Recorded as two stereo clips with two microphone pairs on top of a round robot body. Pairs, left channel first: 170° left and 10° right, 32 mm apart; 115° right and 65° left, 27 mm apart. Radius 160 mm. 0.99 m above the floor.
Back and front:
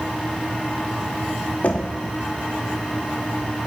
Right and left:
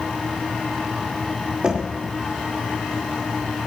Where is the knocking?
125° left, 1.4 m.